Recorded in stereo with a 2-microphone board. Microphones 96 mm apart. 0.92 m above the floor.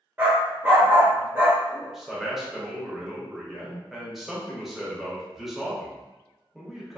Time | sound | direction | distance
0.2 | a dog barking | 20° right (ahead or behind) | 0.9 m
1.7 | a man speaking | centre (ahead or behind) | 0.8 m